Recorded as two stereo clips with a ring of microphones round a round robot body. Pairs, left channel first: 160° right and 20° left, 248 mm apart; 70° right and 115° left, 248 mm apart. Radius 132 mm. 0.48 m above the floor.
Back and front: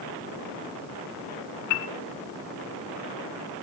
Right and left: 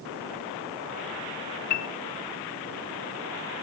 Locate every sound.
1.7 s a piano: 120° right, 0.6 m